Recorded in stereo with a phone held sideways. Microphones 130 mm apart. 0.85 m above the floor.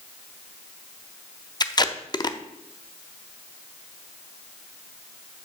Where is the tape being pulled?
35° left (ahead or behind), 0.6 m.